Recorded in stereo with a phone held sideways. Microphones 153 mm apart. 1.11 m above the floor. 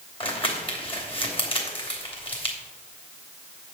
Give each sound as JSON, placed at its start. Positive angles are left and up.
{"t": 0.2, "sound": "crumpling", "side_deg": 35, "distance_m": 2.5}